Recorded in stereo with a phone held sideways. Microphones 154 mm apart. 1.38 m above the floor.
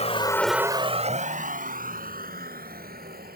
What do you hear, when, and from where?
0.0 s a vehicle: 45° left (ahead or behind); by 3.4 s 75° right (ahead or behind)